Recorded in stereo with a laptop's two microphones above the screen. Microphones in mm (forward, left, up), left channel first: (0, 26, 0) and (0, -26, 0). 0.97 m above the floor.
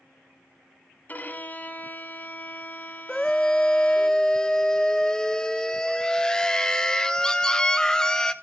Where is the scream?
15° left (ahead or behind), 0.7 m.